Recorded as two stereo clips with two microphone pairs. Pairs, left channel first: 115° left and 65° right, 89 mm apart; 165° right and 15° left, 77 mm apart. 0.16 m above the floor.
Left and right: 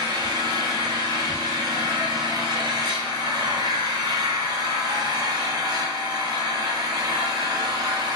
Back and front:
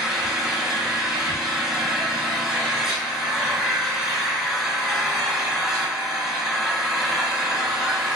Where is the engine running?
75° right, 1.1 m.